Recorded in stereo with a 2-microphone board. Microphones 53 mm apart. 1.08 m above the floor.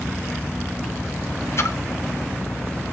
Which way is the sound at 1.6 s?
55° left (ahead or behind).